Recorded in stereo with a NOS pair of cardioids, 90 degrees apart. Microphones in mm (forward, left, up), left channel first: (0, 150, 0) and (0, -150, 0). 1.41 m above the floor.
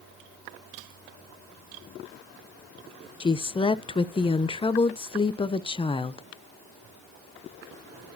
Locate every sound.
3.2 s a woman speaking: 15° left, 0.7 m